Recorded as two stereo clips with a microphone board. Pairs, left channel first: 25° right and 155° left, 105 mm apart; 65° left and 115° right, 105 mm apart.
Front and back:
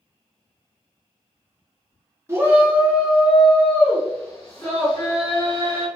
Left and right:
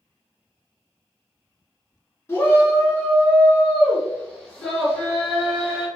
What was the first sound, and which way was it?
A shout, 115° left.